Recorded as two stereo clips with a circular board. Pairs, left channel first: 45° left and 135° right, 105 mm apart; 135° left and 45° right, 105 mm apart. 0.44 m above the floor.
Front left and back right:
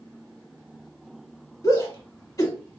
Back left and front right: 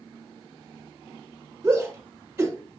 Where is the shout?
15° left, 1.4 m.